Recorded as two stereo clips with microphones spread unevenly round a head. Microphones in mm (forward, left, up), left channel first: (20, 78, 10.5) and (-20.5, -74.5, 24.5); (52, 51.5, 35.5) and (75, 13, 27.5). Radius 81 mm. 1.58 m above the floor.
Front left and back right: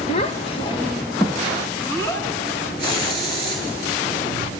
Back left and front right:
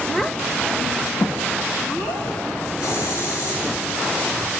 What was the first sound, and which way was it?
A child speaking, 50° left.